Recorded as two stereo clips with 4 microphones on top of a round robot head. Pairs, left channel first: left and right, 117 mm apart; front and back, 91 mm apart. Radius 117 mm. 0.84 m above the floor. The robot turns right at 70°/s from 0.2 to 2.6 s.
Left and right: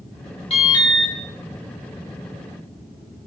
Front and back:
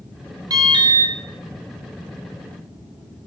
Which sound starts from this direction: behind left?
An alarm, at 0.5 s.